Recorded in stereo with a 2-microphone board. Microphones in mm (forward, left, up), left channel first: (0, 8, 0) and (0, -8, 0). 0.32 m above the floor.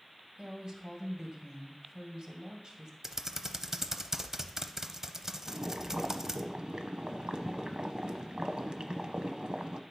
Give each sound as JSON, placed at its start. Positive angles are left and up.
{"t": 0.4, "sound": "a woman speaking", "side_deg": -45, "distance_m": 2.0}
{"t": 3.0, "sound": "typing on a keyboard", "side_deg": -30, "distance_m": 0.7}
{"t": 5.5, "sound": "boiling", "side_deg": -65, "distance_m": 0.8}